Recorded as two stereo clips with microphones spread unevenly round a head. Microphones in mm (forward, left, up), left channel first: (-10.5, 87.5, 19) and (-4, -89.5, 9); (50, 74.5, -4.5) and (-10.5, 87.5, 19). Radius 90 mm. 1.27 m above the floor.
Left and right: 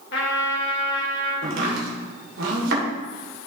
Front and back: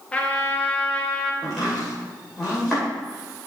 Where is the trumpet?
60° left, 1.8 m.